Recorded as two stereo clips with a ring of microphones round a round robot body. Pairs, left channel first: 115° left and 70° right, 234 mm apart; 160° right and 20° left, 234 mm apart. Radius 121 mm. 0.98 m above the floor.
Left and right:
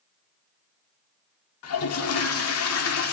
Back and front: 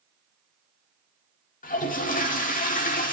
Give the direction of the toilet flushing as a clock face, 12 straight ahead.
7 o'clock.